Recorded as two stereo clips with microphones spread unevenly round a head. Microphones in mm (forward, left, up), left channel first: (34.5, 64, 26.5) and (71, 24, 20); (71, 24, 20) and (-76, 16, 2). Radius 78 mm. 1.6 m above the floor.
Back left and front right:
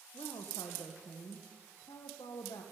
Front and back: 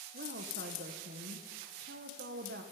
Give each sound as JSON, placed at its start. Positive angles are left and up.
{"t": 0.1, "sound": "a woman speaking", "azimuth_deg": 170, "distance_m": 1.3}